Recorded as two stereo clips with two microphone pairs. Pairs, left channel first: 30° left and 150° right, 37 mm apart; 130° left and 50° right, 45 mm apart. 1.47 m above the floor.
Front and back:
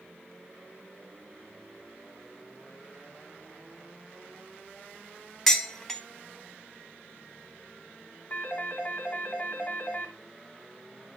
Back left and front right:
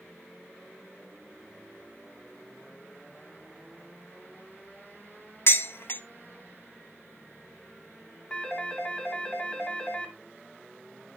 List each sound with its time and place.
5.5 s dishes clattering: 115° left, 0.8 m
8.3 s a phone ringing: 70° left, 2 m